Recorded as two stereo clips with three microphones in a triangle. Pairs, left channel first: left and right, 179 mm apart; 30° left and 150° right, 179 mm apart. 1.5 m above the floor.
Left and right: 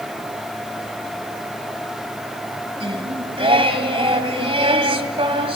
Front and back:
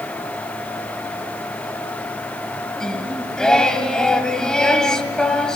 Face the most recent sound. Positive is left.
turn(degrees=-55)